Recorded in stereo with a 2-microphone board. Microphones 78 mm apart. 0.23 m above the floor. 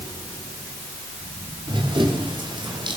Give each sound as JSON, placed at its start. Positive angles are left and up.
{"t": 1.7, "sound": "running footsteps", "side_deg": -75, "distance_m": 8.0}